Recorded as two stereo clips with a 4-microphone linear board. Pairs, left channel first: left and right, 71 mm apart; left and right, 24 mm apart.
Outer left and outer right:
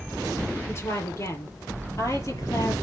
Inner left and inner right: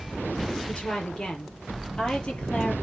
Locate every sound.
0.7 s a woman speaking: 40° left (ahead or behind), 5.5 m; by 2.7 s 50° left (ahead or behind), 6 m